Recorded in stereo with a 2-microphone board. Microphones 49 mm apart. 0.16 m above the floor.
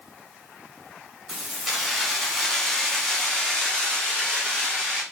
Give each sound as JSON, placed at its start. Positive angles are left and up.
{"t": 1.3, "sound": "keys jangling", "side_deg": 0, "distance_m": 1.1}